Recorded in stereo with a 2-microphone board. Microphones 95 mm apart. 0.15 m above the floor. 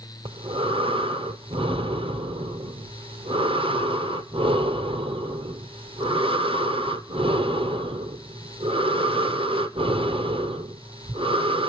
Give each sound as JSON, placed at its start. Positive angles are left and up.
{"t": 0.2, "sound": "breathing", "side_deg": -80, "distance_m": 0.9}